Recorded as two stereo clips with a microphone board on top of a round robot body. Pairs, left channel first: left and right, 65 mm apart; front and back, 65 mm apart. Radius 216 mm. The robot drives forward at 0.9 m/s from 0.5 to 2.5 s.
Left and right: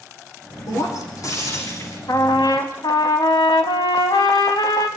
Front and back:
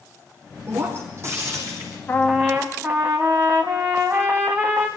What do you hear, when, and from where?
0.7 s breaking glass: 125° left, 5.5 m; by 2.0 s 135° left, 6 m
2.1 s a trumpet: 65° left, 0.6 m; by 4.9 s 110° left, 0.6 m